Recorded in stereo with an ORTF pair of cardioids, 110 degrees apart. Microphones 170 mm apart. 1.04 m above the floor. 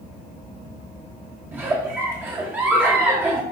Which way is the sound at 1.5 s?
10° right.